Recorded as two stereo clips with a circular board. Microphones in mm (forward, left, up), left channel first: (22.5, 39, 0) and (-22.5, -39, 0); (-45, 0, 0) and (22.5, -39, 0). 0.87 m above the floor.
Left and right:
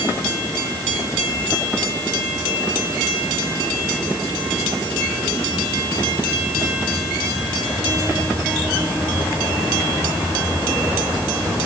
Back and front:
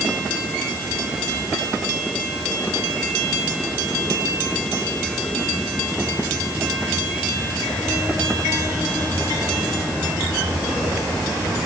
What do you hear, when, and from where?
Only background noise.